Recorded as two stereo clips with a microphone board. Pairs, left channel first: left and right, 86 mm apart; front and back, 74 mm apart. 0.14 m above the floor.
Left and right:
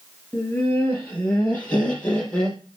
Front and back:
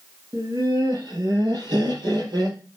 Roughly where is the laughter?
Behind.